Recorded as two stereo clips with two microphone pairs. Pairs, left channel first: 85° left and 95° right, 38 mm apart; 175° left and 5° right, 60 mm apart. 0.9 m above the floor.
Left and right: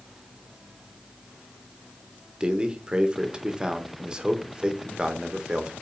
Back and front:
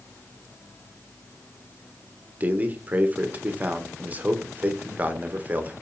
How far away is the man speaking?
About 0.9 m.